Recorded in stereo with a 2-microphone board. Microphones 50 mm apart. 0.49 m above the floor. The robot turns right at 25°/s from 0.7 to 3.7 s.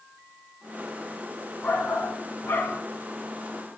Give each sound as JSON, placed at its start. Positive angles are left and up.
{"t": 1.6, "sound": "a shout", "side_deg": 40, "distance_m": 3.5}